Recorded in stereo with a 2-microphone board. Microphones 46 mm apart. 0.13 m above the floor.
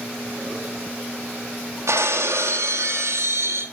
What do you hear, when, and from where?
1.9 s breaking glass: 80° right, 1.5 m